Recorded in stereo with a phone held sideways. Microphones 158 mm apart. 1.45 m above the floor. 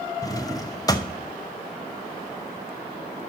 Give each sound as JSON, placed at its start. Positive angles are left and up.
{"t": 0.2, "sound": "a drawer", "side_deg": 25, "distance_m": 0.6}